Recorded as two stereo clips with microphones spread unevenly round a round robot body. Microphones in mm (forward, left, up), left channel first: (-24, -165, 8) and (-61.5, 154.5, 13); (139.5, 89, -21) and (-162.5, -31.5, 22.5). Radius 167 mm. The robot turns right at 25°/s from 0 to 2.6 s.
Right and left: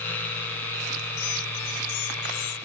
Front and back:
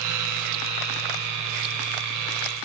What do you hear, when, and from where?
Only background noise.